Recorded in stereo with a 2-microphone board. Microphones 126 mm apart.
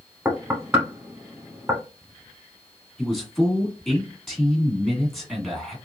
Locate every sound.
0.2 s knocking: 20° right (ahead or behind), 0.8 m
3.0 s a man speaking: centre (ahead or behind), 1.3 m